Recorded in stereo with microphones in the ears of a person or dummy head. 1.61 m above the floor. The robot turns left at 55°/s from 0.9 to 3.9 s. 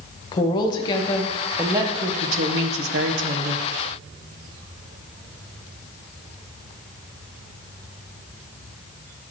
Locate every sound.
0.3 s a woman speaking: 30° left, 1.4 m; by 3.7 s 125° right, 1.4 m